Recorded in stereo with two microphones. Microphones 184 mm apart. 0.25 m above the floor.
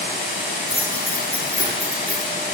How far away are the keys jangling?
About 9.5 m.